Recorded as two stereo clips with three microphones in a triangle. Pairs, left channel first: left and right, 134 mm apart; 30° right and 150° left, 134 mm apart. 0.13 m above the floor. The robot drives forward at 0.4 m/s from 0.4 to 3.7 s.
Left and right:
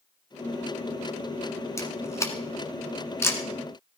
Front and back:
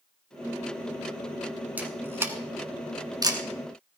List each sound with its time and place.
1.8 s a camera shutter: 95° left, 1.7 m; by 3.4 s 140° left, 1.9 m